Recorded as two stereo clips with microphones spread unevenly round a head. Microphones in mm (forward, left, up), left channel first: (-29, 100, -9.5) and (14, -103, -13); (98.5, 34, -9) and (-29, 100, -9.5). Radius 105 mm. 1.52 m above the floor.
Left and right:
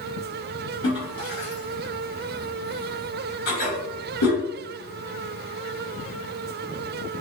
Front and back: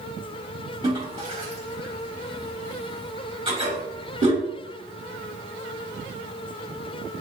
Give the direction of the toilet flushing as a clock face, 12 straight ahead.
9 o'clock.